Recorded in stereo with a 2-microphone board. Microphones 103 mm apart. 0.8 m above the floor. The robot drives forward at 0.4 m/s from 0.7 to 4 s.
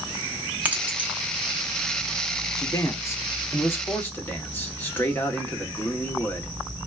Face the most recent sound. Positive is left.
turn(degrees=20)  # may be behind; listen again after turning